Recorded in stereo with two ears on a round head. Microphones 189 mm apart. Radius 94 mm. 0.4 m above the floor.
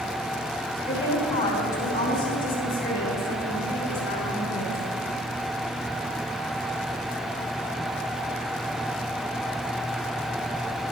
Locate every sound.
0.9 s a woman speaking: 30° left (ahead or behind), 2.5 m; by 4.8 s 60° left (ahead or behind), 5.5 m